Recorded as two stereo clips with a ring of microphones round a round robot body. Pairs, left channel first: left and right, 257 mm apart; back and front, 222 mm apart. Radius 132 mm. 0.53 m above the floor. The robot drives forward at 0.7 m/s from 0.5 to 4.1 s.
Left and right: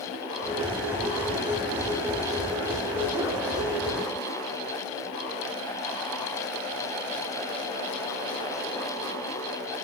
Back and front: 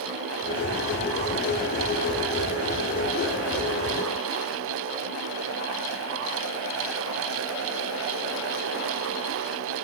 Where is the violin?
No violin in this recording.